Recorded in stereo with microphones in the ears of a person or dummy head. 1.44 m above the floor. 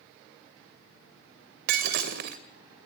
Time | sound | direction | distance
1.7 | breaking glass | 55° right (ahead or behind) | 2.5 m